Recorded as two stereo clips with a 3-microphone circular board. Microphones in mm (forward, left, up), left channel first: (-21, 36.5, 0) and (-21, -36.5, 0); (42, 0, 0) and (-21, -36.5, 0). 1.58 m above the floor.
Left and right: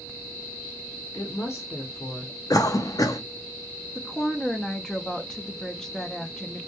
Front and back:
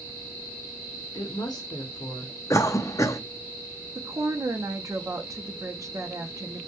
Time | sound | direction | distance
1.1 | a woman speaking | 45° left | 0.6 m
2.5 | a cough | 65° left | 0.5 m
4.0 | a woman speaking | 170° left | 0.6 m